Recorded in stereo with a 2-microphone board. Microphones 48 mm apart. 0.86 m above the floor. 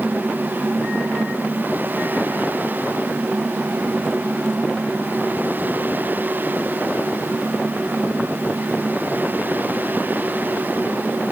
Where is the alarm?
I don't hear an alarm.